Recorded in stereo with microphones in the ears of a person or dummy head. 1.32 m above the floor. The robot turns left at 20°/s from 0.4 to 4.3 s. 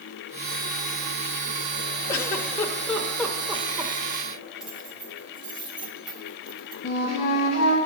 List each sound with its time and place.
2.1 s a giggle: 20° left (ahead or behind), 0.9 m; by 3.9 s 15° right (ahead or behind), 0.9 m
4.6 s keys jangling: centre (ahead or behind), 0.7 m
6.8 s a flute: 40° left (ahead or behind), 1.8 m